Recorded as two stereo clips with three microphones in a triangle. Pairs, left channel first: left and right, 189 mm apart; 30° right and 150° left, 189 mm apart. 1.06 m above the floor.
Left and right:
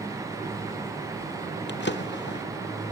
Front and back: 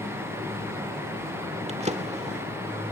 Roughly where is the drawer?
Left.